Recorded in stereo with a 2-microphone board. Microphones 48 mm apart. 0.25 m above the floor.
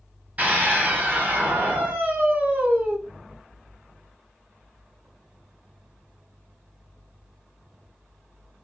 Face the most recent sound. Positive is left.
turn(degrees=-30)  # may be behind; listen again after turning